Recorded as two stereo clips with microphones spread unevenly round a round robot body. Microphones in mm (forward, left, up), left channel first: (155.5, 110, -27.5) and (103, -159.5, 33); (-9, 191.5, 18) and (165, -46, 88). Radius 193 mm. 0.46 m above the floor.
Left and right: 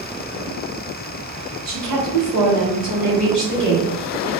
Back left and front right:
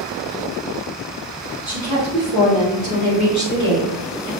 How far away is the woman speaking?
About 1.7 m.